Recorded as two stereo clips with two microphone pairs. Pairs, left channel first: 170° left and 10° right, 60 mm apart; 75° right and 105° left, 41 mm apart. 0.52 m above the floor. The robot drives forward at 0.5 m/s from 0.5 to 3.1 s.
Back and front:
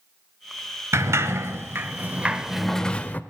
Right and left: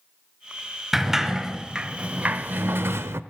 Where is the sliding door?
25° left, 1.1 m; by 3.2 s 105° left, 0.5 m.